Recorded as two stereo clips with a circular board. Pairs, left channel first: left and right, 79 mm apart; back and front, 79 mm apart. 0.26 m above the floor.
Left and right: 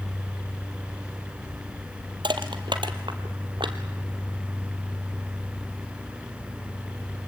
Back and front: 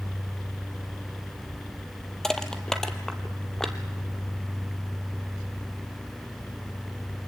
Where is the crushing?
100° right, 1.4 m.